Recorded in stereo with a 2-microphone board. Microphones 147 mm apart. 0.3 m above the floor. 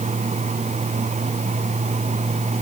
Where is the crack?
I don't hear a crack.